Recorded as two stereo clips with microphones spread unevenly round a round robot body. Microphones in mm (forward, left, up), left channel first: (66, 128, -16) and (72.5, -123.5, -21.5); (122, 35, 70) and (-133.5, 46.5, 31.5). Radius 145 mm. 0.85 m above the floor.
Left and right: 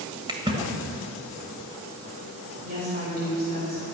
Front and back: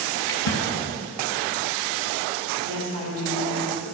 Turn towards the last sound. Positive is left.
turn(degrees=-150)